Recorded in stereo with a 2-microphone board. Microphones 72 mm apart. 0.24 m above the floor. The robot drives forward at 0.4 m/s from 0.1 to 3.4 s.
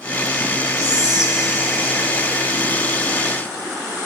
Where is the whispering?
10° right (ahead or behind), 4.5 m.